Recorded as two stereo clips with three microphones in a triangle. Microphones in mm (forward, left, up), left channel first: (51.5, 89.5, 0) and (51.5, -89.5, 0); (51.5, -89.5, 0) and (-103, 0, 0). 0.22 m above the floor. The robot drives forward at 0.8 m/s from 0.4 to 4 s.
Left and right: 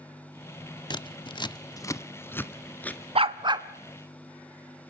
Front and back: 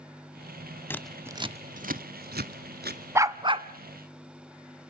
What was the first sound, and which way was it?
Scissors, 40° left.